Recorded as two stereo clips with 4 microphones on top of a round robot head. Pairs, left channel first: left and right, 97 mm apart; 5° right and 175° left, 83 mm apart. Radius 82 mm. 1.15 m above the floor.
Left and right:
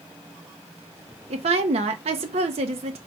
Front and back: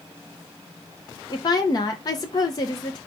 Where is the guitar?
I don't hear a guitar.